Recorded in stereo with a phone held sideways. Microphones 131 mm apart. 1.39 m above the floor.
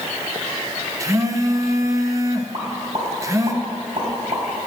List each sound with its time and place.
1.0 s a phone buzzing: 25° right (ahead or behind), 0.8 m
2.5 s a pop: 45° right (ahead or behind), 3.5 m